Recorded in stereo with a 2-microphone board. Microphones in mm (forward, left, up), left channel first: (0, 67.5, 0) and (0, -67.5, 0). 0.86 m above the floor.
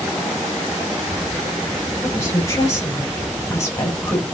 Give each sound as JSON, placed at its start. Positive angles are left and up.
{"t": 2.0, "sound": "a woman speaking", "side_deg": 20, "distance_m": 2.5}